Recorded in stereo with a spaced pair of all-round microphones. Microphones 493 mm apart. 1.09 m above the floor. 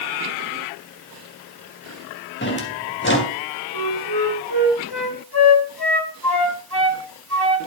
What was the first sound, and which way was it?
A drawer, 20° left (ahead or behind).